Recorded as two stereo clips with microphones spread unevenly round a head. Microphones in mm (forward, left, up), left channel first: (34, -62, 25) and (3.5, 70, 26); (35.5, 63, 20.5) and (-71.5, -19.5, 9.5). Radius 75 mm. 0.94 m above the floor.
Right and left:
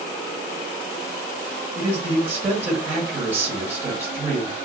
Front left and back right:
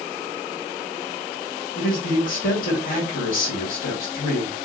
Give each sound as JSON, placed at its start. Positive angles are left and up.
{"t": 1.8, "sound": "a man speaking", "azimuth_deg": 30, "distance_m": 1.5}